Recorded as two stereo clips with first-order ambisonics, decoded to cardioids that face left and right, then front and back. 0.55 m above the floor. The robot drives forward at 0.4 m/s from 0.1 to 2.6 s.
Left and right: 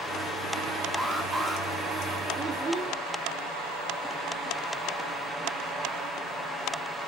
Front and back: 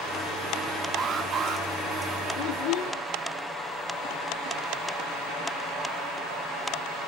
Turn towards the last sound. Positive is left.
turn(degrees=-20)